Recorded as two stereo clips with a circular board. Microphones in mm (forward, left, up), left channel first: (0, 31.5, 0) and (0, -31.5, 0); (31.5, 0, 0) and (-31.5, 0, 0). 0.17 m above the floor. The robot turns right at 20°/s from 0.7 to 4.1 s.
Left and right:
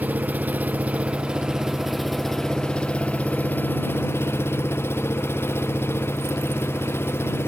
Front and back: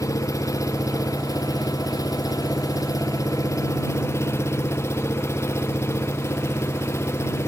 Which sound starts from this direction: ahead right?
An engine running, at 0.0 s.